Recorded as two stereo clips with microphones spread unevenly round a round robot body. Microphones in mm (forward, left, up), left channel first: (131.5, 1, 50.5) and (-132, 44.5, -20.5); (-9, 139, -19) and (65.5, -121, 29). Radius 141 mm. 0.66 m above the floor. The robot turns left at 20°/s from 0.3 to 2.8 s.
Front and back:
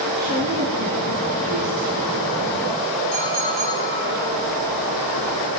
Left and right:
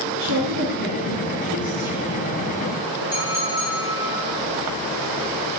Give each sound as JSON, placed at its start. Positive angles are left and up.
{"t": 0.2, "sound": "a woman speaking", "azimuth_deg": -105, "distance_m": 7.5}
{"t": 3.1, "sound": "a clink", "azimuth_deg": -160, "distance_m": 8.0}